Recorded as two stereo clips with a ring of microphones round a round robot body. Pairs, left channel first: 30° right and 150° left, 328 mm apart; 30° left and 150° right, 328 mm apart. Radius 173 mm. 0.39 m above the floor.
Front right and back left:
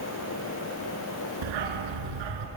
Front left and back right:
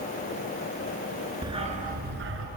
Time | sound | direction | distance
1.4 | a dog barking | 130° left | 2.5 m